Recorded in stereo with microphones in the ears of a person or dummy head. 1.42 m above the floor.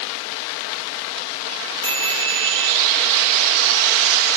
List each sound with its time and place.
1.8 s a chime: 15° left (ahead or behind), 4 m